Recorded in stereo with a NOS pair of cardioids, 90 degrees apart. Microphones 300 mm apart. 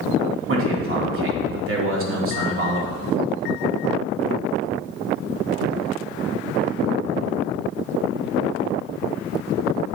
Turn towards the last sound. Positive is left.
turn(degrees=-45)